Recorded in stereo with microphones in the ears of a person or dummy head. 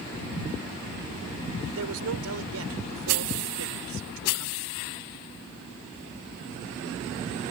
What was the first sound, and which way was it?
A man speaking, 75° right (ahead or behind).